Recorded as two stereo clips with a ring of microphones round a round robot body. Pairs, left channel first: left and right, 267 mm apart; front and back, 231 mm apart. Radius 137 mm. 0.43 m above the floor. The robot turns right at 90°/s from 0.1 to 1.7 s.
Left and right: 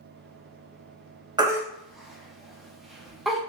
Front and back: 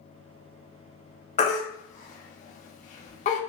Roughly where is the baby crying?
Ahead right.